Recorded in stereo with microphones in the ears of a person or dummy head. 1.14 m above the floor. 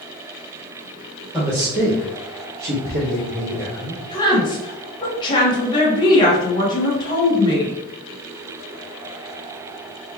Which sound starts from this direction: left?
A woman speaking, at 4.1 s.